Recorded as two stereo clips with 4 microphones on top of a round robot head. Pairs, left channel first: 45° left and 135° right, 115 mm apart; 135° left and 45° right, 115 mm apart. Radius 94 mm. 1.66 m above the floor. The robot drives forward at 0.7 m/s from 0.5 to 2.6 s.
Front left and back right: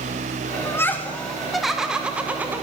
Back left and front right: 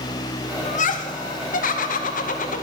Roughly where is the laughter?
Left.